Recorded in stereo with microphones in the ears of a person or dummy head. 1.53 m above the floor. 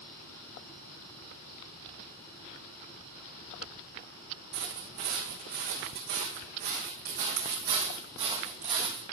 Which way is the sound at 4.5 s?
60° right (ahead or behind).